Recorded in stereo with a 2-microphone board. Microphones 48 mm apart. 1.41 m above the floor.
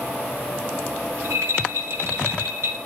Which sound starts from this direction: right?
A rattle, at 1.1 s.